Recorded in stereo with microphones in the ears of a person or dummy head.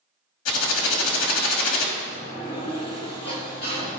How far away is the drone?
No drone in this recording.